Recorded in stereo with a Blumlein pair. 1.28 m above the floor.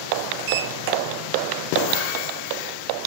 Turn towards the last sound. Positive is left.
turn(degrees=-45)